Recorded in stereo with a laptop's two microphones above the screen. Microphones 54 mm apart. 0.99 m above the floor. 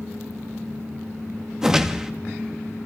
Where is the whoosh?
10° right (ahead or behind), 1.2 m.